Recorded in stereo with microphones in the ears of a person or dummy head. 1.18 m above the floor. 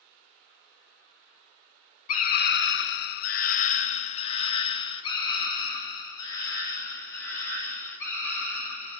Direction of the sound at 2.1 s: 40° left (ahead or behind).